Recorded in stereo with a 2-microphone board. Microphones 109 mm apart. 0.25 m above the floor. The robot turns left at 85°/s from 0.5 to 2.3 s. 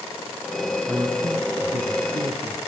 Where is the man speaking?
15° right, 2.5 m; by 2.6 s 135° right, 2.5 m.